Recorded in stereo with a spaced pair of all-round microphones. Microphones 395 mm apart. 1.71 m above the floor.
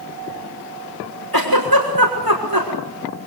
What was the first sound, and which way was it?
A giggle, 60° right (ahead or behind).